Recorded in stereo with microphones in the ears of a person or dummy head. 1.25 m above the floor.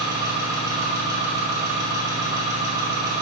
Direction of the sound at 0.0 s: 15° right (ahead or behind).